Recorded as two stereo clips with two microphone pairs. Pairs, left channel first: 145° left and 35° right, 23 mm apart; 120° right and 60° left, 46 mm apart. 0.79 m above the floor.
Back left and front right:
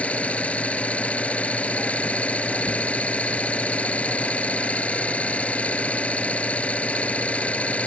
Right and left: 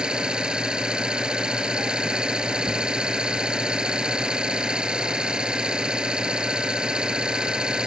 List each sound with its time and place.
0.0 s an engine running: 130° left